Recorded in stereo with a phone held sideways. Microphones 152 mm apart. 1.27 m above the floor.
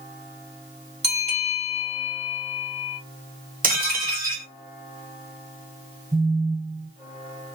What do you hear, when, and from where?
1.0 s a bell: 45° right (ahead or behind), 1.8 m
3.6 s dishes clattering: 70° right (ahead or behind), 1.3 m
6.1 s a phone buzzing: 50° right (ahead or behind), 2.5 m